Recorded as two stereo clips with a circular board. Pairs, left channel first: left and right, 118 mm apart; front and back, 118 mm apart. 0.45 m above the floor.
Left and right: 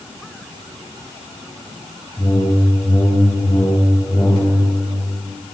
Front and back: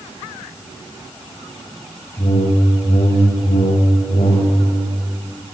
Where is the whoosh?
25° left, 6.5 m.